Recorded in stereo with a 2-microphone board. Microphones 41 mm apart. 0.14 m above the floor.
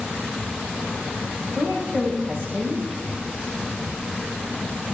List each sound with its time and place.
1.6 s a woman speaking: 40° right (ahead or behind), 8 m